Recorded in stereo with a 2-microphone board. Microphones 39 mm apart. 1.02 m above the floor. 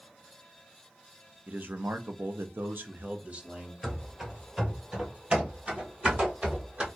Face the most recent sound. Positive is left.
turn(degrees=-35)  # may be behind; listen again after turning